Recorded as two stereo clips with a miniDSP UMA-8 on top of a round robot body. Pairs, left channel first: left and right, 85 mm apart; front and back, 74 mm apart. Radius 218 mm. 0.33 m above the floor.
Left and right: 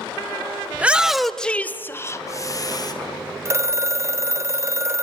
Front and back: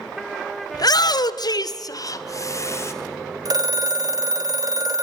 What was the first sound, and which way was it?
A shout, 20° right.